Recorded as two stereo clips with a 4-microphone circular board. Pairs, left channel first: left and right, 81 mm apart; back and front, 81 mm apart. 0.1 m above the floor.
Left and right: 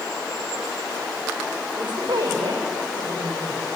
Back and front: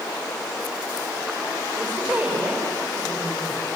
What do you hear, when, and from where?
1.8 s a woman speaking: 70° right, 8.5 m